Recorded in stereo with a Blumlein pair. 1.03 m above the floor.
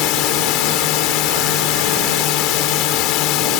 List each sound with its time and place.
0.0 s a drone: 40° left